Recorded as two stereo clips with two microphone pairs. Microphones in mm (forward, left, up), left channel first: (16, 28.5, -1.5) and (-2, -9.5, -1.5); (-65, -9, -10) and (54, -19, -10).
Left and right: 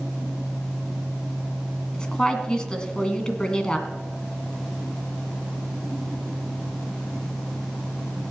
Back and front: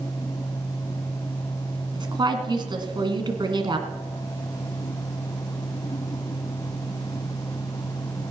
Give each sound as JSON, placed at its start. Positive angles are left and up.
{"t": 1.9, "sound": "a woman speaking", "azimuth_deg": 5, "distance_m": 1.9}